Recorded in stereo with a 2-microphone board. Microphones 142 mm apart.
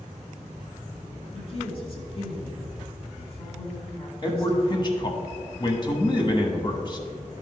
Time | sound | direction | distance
1.3 | a woman speaking | 45° left (ahead or behind) | 2.0 m
4.2 | a man speaking | 35° left (ahead or behind) | 1.1 m